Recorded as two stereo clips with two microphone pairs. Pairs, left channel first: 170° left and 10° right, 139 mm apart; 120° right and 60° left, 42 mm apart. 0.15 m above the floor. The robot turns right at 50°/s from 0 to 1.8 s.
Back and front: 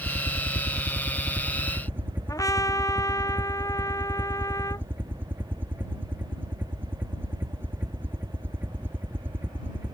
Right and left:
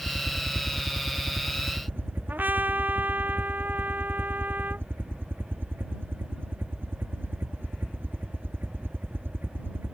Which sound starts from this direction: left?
A trumpet, at 2.3 s.